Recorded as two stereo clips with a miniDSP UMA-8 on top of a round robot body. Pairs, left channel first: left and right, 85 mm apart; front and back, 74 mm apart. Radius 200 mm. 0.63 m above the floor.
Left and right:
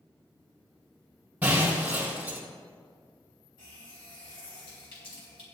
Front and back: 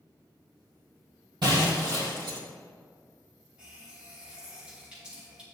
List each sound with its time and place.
1.4 s breaking glass: 165° right, 3 m
3.6 s a running tap: 105° left, 3 m